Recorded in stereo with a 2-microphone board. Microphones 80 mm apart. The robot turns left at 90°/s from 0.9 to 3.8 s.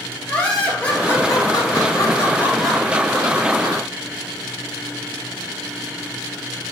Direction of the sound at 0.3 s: 160° left.